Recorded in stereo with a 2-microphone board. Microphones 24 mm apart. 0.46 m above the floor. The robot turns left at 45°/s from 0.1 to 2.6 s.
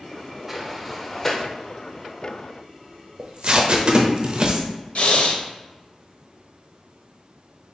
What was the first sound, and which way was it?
A sliding door, 10° right (ahead or behind).